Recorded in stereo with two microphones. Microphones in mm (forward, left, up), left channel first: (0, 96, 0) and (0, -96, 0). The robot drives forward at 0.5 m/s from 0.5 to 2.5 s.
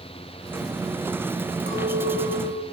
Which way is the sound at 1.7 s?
50° right (ahead or behind).